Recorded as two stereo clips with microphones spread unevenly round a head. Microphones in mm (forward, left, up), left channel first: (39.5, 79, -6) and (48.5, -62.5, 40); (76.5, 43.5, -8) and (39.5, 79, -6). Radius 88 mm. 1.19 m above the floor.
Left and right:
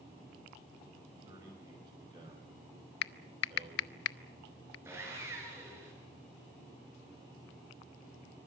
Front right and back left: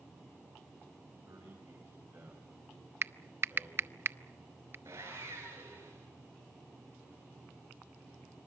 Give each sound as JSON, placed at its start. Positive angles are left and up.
{"t": 1.2, "sound": "a man speaking", "azimuth_deg": -155, "distance_m": 6.0}
{"t": 3.0, "sound": "typing on a keyboard", "azimuth_deg": 105, "distance_m": 0.6}
{"t": 4.8, "sound": "sawing", "azimuth_deg": -160, "distance_m": 5.5}